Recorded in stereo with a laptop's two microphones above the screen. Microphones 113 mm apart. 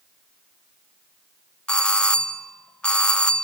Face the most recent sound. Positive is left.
turn(degrees=10)  # may be behind; listen again after turning